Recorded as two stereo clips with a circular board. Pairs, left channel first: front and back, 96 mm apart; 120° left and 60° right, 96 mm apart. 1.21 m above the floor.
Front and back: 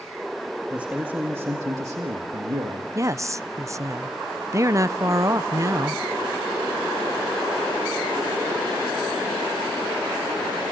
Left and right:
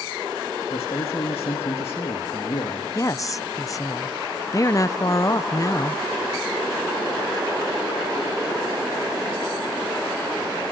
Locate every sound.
0.7 s a man speaking: 100° left, 1.9 m; by 2.9 s 150° left, 1.9 m
3.0 s a woman speaking: 145° left, 0.5 m